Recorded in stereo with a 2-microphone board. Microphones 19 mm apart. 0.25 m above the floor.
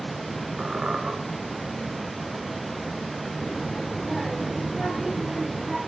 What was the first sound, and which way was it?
A squeak, 65° right (ahead or behind).